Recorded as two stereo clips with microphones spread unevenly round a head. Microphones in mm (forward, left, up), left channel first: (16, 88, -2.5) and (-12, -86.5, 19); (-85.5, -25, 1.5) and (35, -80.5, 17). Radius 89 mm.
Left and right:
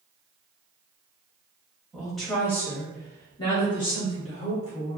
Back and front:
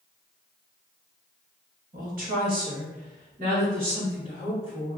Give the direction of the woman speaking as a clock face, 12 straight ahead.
12 o'clock.